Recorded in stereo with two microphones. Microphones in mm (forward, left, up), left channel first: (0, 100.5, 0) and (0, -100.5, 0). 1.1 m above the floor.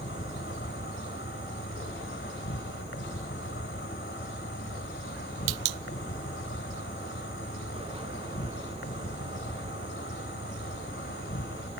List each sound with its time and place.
0.0 s an insect: 75° left (ahead or behind)